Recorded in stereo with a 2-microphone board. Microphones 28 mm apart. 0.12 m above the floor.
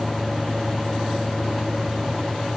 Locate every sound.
Only background noise.